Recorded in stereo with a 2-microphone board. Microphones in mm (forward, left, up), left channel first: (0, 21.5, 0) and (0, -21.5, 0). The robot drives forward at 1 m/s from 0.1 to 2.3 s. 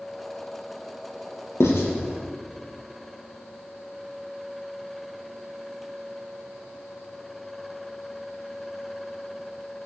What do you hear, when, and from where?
1.6 s writing: 80° left, 2.5 m; by 1.9 s 75° left (ahead or behind), 2.5 m